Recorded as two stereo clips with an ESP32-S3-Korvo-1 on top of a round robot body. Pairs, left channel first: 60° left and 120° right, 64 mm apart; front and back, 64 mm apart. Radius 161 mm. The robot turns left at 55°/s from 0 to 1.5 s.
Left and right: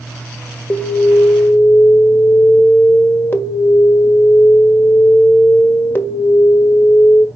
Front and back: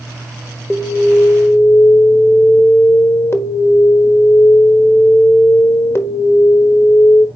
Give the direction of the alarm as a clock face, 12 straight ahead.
10 o'clock.